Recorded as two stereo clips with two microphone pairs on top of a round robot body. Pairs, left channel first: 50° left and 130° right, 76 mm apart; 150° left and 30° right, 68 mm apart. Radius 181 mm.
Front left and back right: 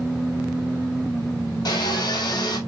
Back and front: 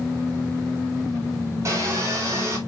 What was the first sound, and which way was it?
Sawing, 20° left.